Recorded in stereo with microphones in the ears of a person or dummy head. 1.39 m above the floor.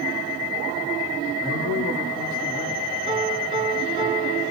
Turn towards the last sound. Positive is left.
turn(degrees=-25)  # may be behind; listen again after turning